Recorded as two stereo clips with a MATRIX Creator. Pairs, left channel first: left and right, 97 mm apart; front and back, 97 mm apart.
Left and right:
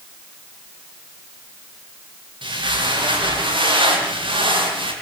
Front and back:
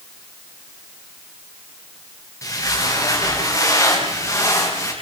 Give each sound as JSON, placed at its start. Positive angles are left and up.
{"t": 2.4, "sound": "footsteps", "azimuth_deg": -55, "distance_m": 9.0}